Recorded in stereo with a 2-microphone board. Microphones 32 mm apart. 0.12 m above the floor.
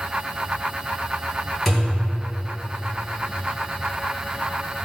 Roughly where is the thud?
Centre.